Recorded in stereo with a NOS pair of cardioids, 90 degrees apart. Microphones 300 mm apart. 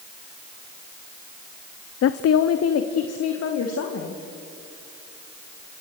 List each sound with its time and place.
2.0 s a woman speaking: 55° left, 0.7 m; by 4.2 s 65° left, 3 m